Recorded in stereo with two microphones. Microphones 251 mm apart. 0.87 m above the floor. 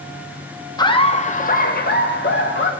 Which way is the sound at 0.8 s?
15° left (ahead or behind).